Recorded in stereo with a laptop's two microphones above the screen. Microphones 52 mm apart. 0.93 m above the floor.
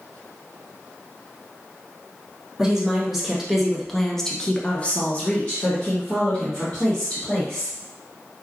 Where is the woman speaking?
5° right (ahead or behind), 1.4 m; by 7.8 s 20° left (ahead or behind), 1.8 m.